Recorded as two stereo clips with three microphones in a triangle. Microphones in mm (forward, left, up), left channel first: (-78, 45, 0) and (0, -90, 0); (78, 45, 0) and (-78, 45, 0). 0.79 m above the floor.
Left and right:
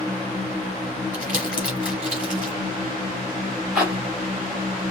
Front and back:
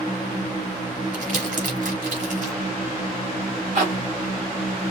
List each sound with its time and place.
1.1 s crumpling: 140° right, 4 m
3.8 s a zipper: 145° right, 3.5 m